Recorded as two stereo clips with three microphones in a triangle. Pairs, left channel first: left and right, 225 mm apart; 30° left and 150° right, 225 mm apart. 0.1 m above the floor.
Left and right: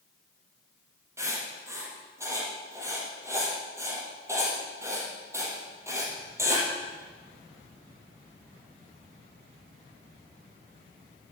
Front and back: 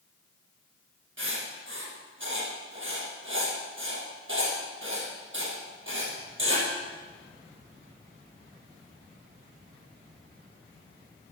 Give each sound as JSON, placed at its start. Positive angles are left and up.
{"t": 1.2, "sound": "writing", "azimuth_deg": -165, "distance_m": 3.5}